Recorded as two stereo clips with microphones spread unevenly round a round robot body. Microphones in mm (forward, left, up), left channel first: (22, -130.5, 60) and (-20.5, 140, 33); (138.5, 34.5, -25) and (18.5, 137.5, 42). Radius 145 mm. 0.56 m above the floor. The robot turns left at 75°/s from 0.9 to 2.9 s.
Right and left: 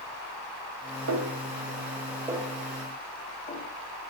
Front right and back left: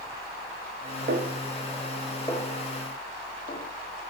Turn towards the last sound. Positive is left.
turn(degrees=-20)